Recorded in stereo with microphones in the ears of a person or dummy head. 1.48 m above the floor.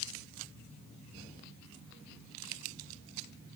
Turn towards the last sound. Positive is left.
No sound to turn to.